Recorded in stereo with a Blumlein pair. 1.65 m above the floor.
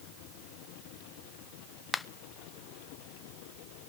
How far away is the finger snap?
About 0.7 m.